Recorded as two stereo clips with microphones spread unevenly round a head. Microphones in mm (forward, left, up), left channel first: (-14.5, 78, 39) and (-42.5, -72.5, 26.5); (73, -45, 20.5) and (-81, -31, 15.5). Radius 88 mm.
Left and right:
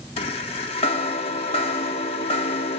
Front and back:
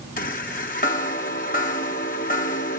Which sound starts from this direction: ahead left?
A chime, at 0.2 s.